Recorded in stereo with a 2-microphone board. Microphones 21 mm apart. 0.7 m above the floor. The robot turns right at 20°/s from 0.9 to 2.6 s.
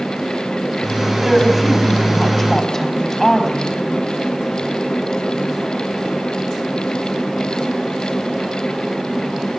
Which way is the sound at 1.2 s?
Centre (ahead or behind).